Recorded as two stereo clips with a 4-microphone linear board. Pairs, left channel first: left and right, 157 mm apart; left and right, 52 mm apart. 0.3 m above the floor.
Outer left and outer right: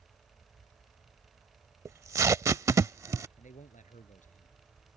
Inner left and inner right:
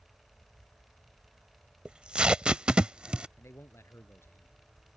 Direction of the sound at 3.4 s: 55° left (ahead or behind).